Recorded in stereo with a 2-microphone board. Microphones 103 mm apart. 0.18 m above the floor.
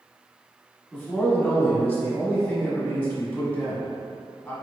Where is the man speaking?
20° left (ahead or behind), 1.0 m.